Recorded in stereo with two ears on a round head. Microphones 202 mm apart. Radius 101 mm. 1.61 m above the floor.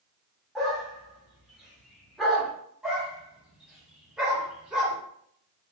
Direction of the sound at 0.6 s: Centre (ahead or behind).